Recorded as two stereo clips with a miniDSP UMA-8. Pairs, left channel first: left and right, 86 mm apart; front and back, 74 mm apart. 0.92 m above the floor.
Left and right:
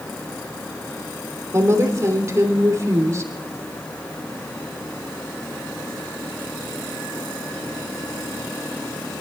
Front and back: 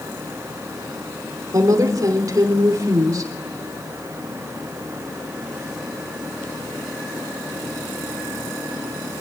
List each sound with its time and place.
1.5 s a woman speaking: 140° right, 3 m